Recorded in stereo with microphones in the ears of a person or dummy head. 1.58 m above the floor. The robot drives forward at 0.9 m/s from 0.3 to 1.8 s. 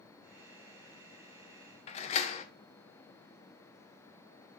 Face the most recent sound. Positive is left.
turn(degrees=40)  # may be behind; listen again after turning